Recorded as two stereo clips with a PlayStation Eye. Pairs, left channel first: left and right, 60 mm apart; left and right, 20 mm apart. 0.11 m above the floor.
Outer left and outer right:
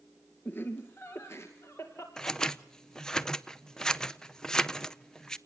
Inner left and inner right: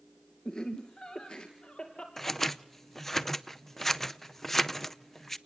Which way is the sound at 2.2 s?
15° left (ahead or behind).